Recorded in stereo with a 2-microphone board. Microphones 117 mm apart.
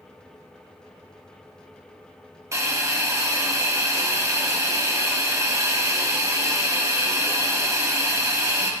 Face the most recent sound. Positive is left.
turn(degrees=-25)  # may be behind; listen again after turning